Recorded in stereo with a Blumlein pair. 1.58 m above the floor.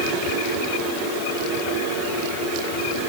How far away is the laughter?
No laughter in this recording.